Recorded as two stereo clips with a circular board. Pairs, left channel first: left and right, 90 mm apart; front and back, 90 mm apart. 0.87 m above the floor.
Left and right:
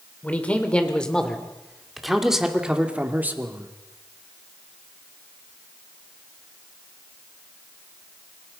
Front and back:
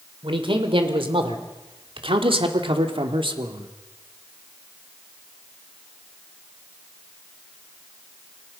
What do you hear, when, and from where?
0.2 s a man speaking: 165° left, 3 m; by 3.7 s 155° right, 2 m